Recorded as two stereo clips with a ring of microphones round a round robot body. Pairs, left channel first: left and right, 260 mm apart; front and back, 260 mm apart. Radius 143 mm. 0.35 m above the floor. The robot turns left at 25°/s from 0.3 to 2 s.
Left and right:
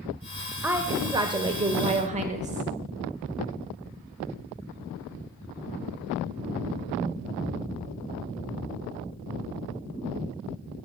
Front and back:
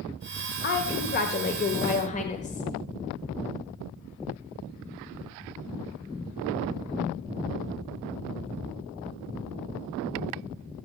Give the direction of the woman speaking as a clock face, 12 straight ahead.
12 o'clock.